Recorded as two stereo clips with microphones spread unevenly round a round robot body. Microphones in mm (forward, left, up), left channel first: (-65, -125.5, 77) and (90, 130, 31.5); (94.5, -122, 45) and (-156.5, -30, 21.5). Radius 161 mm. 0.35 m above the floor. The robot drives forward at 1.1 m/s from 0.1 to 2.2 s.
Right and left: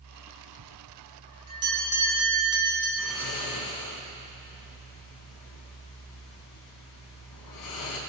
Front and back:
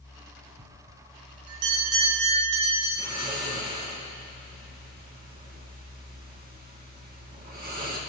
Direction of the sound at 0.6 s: 100° left.